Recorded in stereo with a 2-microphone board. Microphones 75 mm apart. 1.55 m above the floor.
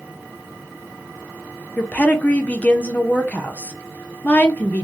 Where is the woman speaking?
20° left (ahead or behind), 0.6 m.